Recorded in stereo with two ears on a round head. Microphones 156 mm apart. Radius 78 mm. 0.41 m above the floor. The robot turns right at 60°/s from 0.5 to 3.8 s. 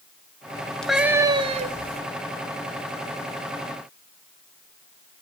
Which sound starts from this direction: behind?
A cat meowing, at 0.8 s.